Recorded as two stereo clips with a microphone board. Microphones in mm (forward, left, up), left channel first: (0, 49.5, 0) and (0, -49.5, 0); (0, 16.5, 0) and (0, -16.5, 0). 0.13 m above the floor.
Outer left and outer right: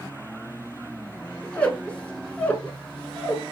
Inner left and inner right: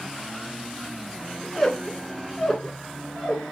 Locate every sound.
1.4 s a squeak: 15° left (ahead or behind), 0.6 m